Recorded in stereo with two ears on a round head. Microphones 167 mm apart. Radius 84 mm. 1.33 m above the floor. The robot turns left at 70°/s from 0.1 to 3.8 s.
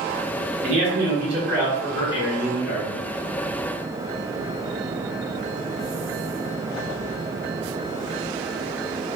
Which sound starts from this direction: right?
A man speaking, at 0.6 s.